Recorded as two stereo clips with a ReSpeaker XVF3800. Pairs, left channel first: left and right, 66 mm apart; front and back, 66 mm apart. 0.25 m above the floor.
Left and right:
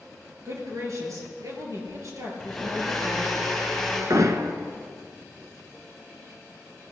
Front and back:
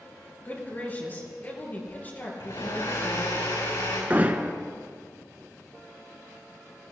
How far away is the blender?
About 4.5 m.